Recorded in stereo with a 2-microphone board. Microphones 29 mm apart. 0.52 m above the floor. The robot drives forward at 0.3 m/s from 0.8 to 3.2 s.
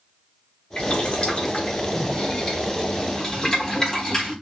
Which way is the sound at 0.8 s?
45° left (ahead or behind).